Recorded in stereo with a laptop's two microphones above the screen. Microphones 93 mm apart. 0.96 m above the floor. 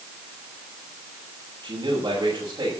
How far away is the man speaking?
About 6 m.